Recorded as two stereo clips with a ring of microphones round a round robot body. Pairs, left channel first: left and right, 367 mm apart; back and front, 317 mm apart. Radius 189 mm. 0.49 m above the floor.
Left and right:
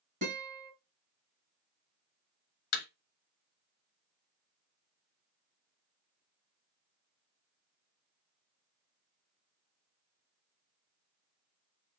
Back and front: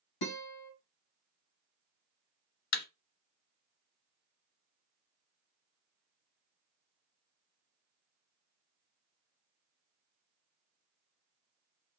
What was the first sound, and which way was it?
A guitar, 160° right.